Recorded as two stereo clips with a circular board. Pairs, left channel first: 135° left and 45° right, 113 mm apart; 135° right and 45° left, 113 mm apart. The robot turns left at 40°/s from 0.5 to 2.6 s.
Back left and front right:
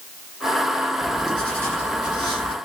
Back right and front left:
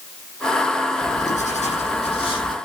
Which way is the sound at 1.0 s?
130° right.